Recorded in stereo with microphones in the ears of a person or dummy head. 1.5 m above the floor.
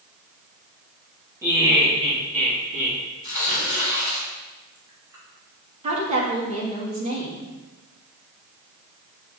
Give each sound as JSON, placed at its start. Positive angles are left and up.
{"t": 1.4, "sound": "laughter", "side_deg": -10, "distance_m": 2.5}
{"t": 3.2, "sound": "tearing paper", "side_deg": -15, "distance_m": 3.5}
{"t": 5.8, "sound": "a woman speaking", "side_deg": -30, "distance_m": 2.5}